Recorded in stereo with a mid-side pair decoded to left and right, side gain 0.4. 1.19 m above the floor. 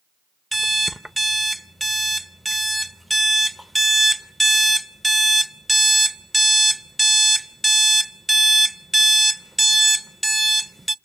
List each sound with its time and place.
0.5 s an alarm clock: 10° right, 0.7 m